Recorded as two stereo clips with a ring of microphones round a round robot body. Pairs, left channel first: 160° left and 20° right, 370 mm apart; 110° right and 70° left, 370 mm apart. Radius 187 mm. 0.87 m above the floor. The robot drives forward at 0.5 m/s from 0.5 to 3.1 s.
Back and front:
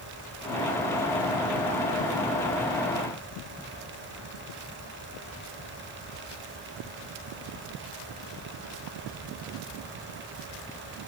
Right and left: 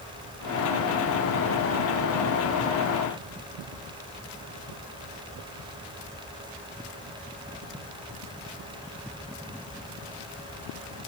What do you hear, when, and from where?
Only background noise.